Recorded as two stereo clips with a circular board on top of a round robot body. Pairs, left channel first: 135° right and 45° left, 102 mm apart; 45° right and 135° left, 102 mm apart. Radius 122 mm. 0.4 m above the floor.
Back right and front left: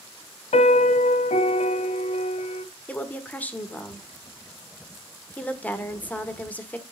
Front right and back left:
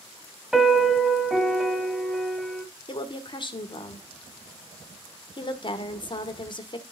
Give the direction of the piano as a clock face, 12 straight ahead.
5 o'clock.